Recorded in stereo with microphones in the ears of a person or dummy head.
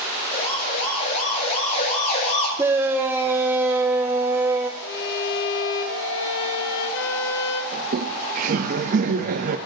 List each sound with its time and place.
0.3 s a siren: 35° left (ahead or behind), 7 m
2.6 s a shout: 10° right (ahead or behind), 0.8 m
4.8 s a violin: 65° left (ahead or behind), 1.6 m
7.7 s laughter: 45° right (ahead or behind), 0.7 m